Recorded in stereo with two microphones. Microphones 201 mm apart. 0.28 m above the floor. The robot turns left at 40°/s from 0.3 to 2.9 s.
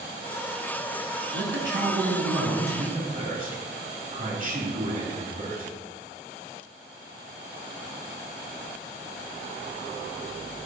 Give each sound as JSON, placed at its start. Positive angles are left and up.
{"t": 1.3, "sound": "a man speaking", "azimuth_deg": -70, "distance_m": 3.5}